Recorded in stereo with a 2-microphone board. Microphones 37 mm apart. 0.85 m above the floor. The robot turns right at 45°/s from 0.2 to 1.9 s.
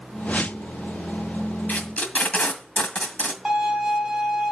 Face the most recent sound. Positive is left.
turn(degrees=-5)  # may be behind; listen again after turning